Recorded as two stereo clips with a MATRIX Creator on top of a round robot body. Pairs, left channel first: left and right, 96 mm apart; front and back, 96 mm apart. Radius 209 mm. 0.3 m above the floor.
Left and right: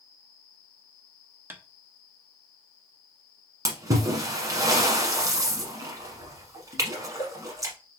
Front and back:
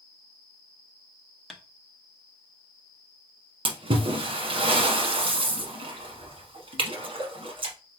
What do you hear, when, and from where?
1.5 s tapping: 80° right, 1.5 m
3.6 s a splash: 150° right, 0.9 m